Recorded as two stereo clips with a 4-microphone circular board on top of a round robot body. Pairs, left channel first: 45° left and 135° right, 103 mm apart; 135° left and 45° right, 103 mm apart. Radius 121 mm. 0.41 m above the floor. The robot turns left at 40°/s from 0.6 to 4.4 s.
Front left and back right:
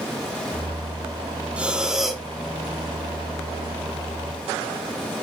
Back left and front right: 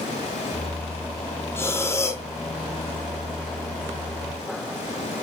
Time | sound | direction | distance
1.6 | breathing | 160° left | 1.3 m